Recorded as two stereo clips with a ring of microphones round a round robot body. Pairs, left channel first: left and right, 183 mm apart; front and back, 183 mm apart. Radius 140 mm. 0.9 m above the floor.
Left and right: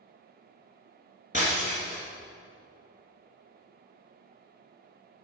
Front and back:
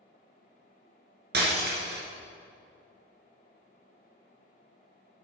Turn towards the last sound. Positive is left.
turn(degrees=155)